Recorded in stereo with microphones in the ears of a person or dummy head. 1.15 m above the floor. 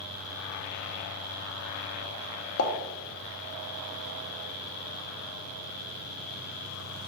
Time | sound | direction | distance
2.6 | a pop | 60° left (ahead or behind) | 0.7 m